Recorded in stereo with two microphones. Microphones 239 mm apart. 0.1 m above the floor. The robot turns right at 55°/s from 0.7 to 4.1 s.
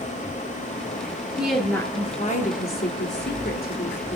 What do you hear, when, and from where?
1.4 s a woman speaking: 10° right, 1.7 m; by 4.2 s 140° left, 1.7 m